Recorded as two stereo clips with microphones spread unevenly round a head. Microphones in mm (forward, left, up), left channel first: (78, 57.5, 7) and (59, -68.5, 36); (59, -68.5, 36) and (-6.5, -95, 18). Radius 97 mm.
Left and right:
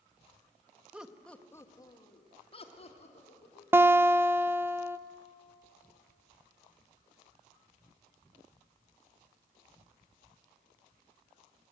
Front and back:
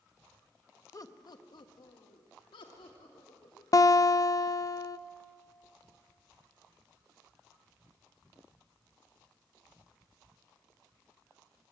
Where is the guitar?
20° right, 0.8 m.